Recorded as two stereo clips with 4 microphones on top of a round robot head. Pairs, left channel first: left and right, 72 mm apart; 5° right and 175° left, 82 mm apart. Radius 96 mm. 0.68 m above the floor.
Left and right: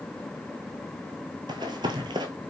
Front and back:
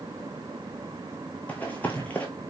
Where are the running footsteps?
85° right, 0.8 m.